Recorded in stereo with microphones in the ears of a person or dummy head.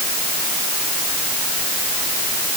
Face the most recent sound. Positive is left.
No sound to turn to.